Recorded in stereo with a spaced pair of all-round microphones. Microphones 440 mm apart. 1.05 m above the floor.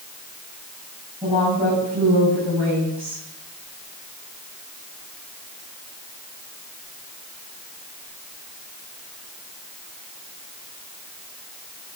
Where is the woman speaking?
5° right (ahead or behind), 6.5 m.